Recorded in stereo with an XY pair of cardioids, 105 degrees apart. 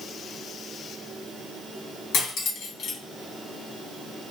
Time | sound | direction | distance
2.1 | cutlery clinking | 70° left | 1.1 m